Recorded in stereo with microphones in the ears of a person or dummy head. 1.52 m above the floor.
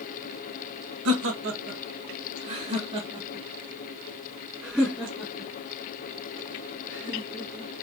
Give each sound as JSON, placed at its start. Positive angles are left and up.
{"t": 1.1, "sound": "laughter", "side_deg": -70, "distance_m": 1.4}